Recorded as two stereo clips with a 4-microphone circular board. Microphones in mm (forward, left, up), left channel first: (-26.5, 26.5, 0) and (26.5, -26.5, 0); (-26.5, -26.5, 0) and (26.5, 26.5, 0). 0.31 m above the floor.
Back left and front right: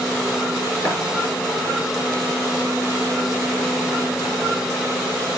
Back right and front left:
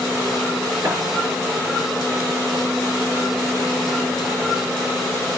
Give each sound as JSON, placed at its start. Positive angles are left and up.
{"t": 0.8, "sound": "tapping", "azimuth_deg": 85, "distance_m": 6.0}